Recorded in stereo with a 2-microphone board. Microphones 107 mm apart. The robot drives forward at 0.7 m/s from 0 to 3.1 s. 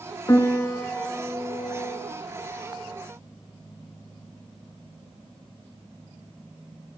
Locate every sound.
0.3 s a piano: 30° left (ahead or behind), 0.6 m; by 2.1 s 10° left (ahead or behind), 1.7 m